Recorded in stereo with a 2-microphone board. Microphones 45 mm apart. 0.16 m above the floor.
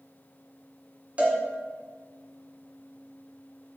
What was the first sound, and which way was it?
A cowbell, 30° right (ahead or behind).